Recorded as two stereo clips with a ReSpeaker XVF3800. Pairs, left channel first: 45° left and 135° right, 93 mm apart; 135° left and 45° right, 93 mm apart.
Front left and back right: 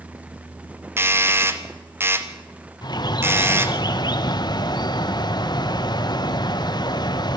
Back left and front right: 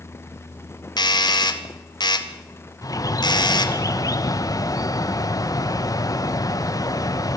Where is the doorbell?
165° left, 1.6 m.